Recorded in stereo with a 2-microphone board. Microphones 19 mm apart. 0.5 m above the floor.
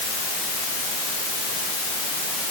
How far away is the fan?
No fan in this recording.